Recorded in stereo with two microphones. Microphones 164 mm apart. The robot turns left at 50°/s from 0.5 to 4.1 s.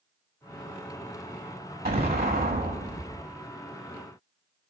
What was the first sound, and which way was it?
An explosion, 75° right.